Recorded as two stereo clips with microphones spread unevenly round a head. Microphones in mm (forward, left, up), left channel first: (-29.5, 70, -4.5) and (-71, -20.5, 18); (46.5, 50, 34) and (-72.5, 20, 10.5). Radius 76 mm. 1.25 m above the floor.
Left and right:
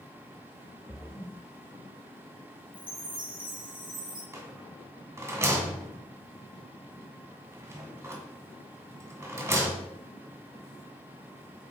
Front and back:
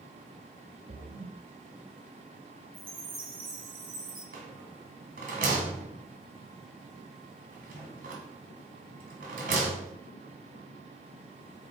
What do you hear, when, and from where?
0.9 s a splash: 155° left, 1.2 m
2.7 s a chime: 150° right, 4 m
4.3 s a rattle: 155° right, 1.7 m